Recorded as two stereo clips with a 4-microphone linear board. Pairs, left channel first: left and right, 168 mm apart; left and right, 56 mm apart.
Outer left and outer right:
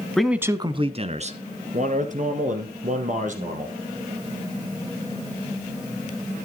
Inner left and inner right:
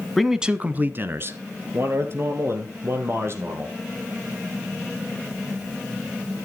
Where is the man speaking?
5° left (ahead or behind), 1.1 m; by 3.8 s 50° right (ahead or behind), 5.5 m.